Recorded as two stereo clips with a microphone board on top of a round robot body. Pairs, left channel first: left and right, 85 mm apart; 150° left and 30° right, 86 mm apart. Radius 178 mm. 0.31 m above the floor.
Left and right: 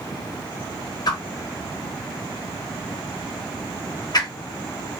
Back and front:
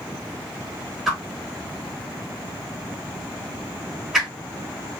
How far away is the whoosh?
About 0.8 m.